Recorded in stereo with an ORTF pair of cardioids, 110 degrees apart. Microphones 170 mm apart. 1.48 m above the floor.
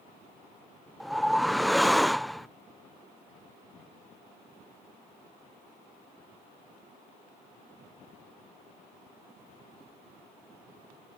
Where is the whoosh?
Straight ahead.